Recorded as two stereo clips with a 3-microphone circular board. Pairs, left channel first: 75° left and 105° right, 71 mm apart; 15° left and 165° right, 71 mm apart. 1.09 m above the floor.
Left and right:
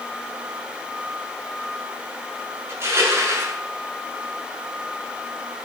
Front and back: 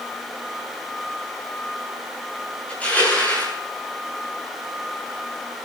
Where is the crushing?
55° right, 8.5 m.